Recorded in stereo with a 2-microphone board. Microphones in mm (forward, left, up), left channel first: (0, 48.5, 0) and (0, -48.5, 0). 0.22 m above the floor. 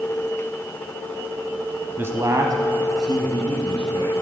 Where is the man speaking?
25° right (ahead or behind), 1.1 m; by 4.1 s 55° right (ahead or behind), 3.5 m.